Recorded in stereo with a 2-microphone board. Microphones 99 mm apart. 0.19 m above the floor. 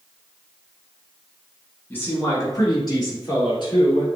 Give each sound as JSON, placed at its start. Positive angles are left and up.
{"t": 1.9, "sound": "a man speaking", "side_deg": 20, "distance_m": 1.7}